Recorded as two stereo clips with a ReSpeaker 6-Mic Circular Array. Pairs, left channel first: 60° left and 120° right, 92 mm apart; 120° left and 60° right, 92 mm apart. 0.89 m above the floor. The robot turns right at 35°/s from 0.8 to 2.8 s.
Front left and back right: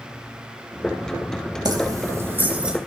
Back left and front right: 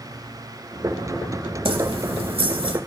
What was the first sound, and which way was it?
Keys jangling, 75° right.